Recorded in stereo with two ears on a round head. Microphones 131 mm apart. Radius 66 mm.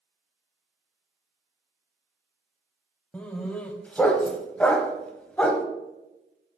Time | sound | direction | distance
3.1 | a dog barking | 10° left (ahead or behind) | 0.6 m